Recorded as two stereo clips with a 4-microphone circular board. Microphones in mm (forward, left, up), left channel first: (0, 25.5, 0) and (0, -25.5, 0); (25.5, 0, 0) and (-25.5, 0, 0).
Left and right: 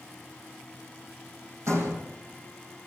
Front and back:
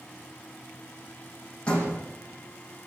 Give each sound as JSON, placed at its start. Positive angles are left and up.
{"t": 1.7, "sound": "a door slam", "azimuth_deg": -70, "distance_m": 6.0}